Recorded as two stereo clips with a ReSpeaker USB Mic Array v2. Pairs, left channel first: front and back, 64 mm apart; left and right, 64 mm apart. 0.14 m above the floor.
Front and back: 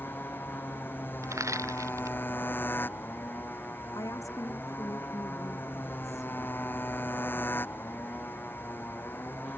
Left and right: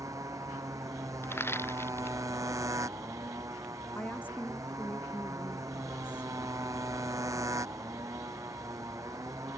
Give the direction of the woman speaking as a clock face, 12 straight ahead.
11 o'clock.